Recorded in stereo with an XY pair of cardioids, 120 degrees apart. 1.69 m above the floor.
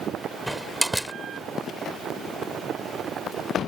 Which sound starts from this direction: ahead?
A door slam, at 0.5 s.